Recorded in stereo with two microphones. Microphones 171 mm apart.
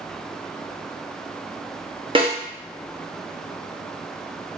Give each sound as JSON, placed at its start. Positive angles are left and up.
{"t": 2.1, "sound": "a snare drum", "side_deg": -30, "distance_m": 0.7}